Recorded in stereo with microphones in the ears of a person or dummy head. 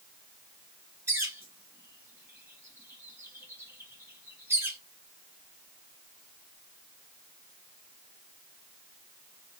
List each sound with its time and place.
1.1 s a bird: 5° right (ahead or behind), 0.6 m